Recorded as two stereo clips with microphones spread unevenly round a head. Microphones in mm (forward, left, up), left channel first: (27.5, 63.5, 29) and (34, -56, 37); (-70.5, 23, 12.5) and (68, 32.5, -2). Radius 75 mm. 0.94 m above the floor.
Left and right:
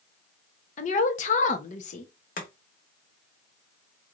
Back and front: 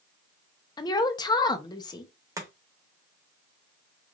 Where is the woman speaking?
120° left, 0.7 m.